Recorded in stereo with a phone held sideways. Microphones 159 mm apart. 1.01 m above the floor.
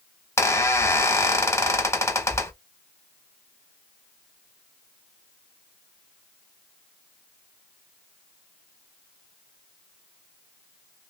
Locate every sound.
0.4 s a squeak: 20° left (ahead or behind), 0.8 m